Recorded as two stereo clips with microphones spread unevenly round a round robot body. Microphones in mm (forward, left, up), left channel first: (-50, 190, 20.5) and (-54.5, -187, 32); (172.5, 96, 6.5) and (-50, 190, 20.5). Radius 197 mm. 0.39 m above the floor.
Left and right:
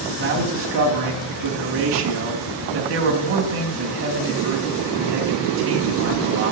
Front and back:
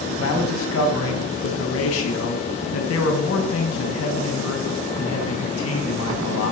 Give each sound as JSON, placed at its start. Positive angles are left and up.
{"t": 0.2, "sound": "a man speaking", "azimuth_deg": -35, "distance_m": 2.5}